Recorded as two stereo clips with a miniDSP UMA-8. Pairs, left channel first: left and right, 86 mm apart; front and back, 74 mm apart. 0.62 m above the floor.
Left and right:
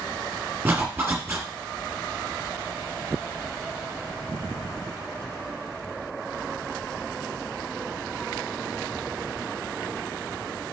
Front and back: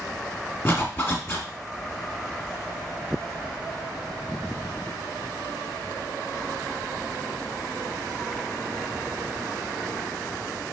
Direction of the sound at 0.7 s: 40° right.